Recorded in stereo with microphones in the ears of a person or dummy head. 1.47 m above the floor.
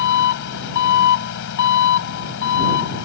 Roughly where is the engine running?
Left.